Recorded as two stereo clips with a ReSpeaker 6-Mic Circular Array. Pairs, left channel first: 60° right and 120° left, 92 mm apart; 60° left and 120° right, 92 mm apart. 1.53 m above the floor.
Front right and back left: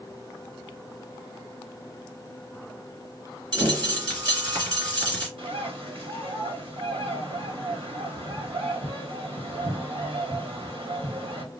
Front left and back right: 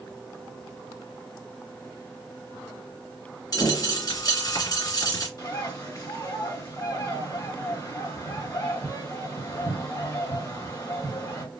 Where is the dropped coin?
95° left, 3 m.